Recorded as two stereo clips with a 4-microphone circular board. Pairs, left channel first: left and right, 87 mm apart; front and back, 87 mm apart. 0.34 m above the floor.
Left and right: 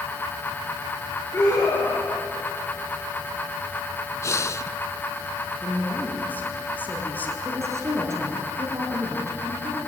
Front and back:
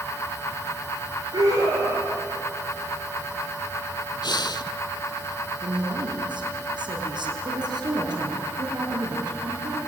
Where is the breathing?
35° left, 0.7 m.